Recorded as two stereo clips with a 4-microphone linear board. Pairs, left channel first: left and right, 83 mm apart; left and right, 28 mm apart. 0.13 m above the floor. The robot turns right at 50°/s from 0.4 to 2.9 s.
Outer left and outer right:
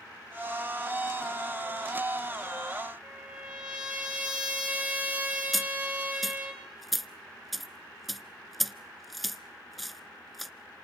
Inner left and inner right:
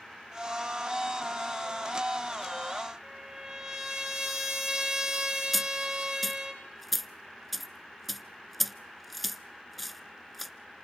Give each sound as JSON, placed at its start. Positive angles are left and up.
{"t": 3.0, "sound": "a trumpet", "side_deg": -15, "distance_m": 3.5}
{"t": 5.5, "sound": "a dropped coin", "side_deg": 0, "distance_m": 0.5}